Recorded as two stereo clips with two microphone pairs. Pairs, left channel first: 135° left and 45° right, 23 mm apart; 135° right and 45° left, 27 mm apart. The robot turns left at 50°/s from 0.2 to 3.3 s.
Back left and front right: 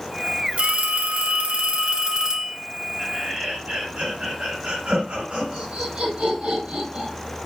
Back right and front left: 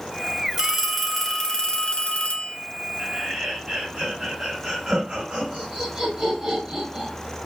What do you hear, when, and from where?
0.6 s a phone ringing: 20° right, 1.4 m; by 2.6 s 120° right, 1.4 m
3.0 s laughter: 20° left, 4 m; by 7.1 s 5° left, 4 m